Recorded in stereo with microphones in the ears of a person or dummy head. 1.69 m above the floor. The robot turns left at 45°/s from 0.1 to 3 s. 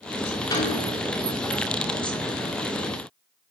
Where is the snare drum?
20° left (ahead or behind), 2.5 m; by 0.9 s 35° left (ahead or behind), 2.5 m.